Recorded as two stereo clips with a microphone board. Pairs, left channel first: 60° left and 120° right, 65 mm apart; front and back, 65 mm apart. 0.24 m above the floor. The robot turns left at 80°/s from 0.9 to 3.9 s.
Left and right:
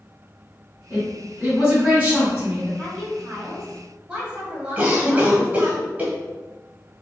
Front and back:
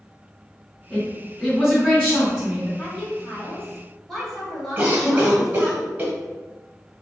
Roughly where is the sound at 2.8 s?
Ahead.